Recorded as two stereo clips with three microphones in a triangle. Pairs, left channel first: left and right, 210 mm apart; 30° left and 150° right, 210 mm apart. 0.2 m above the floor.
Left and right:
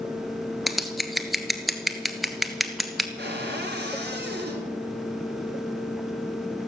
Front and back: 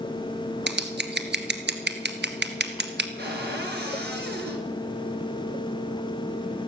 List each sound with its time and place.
0.7 s scissors: straight behind, 1.4 m
3.2 s a cupboard door: 120° right, 3.5 m